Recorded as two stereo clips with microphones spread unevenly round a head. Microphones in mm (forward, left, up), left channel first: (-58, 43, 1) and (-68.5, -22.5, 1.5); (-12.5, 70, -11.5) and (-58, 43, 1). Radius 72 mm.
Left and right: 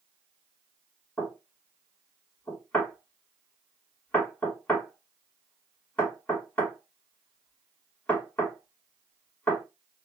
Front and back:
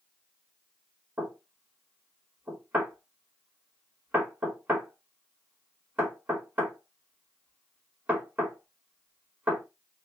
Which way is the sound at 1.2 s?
150° left.